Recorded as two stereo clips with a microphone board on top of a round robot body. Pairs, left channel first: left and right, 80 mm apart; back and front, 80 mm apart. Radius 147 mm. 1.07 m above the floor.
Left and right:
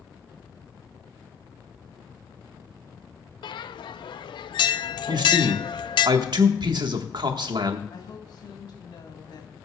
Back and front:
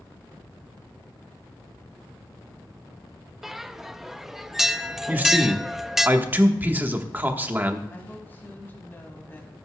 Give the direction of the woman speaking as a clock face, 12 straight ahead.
8 o'clock.